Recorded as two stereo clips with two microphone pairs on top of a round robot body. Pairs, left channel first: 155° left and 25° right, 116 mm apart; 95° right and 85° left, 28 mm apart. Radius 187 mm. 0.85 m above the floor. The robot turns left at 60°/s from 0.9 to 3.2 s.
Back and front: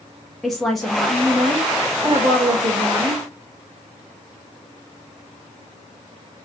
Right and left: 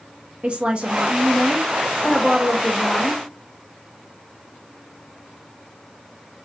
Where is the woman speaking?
65° left, 0.9 m; by 3.2 s 75° right, 0.9 m.